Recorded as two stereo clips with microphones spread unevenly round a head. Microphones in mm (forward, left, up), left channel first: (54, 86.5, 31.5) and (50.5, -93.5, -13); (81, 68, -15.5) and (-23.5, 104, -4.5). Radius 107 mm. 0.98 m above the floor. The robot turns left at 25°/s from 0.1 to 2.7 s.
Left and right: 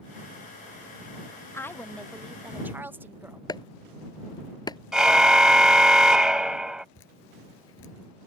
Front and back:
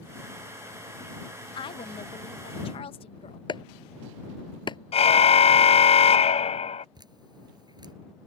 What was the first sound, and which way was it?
A woman speaking, 5° left.